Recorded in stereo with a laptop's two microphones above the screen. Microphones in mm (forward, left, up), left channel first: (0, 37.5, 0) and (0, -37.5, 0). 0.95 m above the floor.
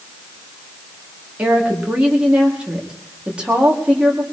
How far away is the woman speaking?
About 2 m.